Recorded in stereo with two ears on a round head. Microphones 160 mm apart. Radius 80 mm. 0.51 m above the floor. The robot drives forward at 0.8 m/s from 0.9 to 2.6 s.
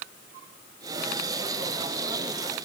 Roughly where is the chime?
No chime in this recording.